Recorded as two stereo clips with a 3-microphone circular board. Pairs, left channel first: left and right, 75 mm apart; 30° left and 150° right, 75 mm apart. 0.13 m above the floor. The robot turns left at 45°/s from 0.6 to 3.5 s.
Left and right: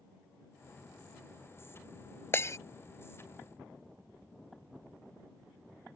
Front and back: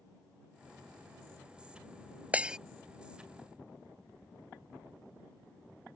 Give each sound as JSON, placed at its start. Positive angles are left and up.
{"t": 2.3, "sound": "breaking glass", "azimuth_deg": 145}